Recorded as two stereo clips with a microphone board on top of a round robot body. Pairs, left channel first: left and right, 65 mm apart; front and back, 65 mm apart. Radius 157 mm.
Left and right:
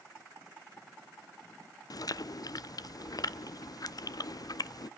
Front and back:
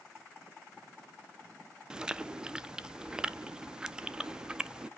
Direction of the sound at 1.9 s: 100° left.